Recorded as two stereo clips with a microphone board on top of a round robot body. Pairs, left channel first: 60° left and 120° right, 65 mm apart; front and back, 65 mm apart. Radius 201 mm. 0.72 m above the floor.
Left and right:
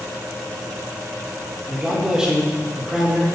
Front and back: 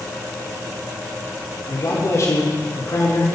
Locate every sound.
1.7 s a man speaking: 40° right, 3 m